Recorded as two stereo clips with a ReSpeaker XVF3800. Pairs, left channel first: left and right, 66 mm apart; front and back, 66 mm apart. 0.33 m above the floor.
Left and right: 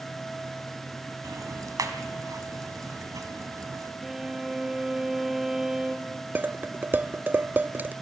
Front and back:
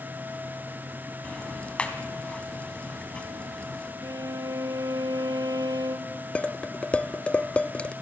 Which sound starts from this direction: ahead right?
Dishes clattering, at 6.3 s.